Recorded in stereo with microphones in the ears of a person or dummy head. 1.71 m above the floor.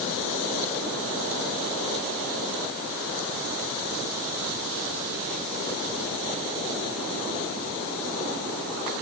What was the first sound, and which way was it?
Only background noise.